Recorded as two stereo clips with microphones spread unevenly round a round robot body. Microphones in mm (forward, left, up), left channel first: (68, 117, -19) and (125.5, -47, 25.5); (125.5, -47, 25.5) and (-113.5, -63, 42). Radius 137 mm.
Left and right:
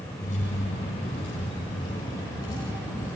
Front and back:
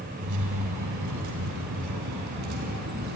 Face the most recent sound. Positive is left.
turn(degrees=-170)